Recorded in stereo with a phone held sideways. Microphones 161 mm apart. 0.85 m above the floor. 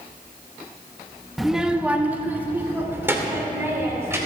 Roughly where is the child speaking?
Centre.